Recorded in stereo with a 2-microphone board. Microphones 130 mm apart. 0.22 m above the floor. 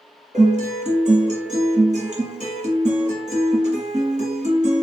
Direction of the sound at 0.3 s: 65° right (ahead or behind).